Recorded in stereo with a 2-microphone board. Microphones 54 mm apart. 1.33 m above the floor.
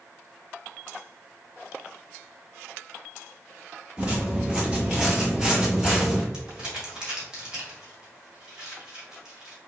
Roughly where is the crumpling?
Centre.